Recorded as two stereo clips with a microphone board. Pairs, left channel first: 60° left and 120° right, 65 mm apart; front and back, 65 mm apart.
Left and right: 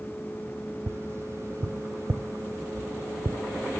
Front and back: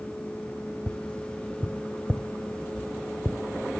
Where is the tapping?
75° right, 0.6 m.